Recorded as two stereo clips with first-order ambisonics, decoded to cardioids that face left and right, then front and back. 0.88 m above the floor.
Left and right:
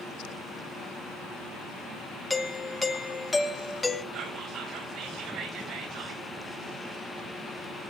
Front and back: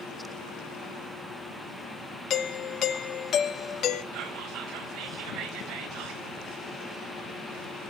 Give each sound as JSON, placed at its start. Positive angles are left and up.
{"t": 2.3, "sound": "a doorbell", "azimuth_deg": 20, "distance_m": 0.9}
{"t": 4.1, "sound": "whispering", "azimuth_deg": -135, "distance_m": 4.5}